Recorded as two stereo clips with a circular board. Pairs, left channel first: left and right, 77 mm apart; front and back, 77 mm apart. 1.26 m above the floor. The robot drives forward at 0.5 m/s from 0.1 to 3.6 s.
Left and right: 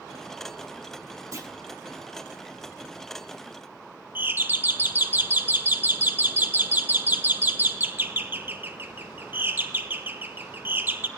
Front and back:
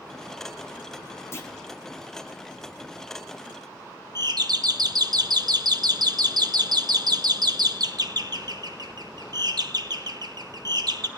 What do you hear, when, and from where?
1.3 s a clunk: 50° right, 1.3 m; by 1.5 s 55° right, 1.3 m
4.2 s a doorbell: 155° right, 0.8 m